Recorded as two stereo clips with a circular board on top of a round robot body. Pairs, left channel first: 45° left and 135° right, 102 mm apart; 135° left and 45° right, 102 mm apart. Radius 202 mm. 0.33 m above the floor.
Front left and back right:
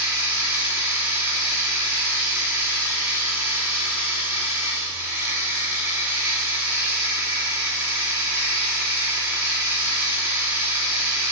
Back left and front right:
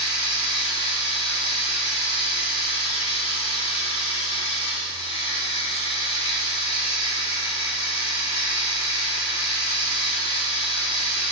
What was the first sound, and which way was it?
Running water, 155° left.